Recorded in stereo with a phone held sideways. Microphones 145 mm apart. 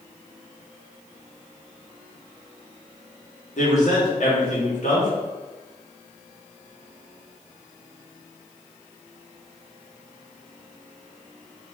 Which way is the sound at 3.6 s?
60° left (ahead or behind).